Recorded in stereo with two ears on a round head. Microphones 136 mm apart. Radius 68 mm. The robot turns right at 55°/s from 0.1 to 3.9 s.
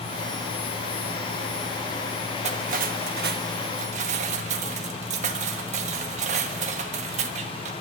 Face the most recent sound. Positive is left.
turn(degrees=-50)